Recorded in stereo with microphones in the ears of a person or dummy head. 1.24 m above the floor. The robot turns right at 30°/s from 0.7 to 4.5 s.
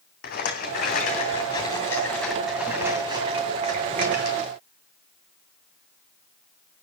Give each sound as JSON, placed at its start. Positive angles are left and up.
{"t": 0.2, "sound": "a rattle", "azimuth_deg": 130, "distance_m": 2.5}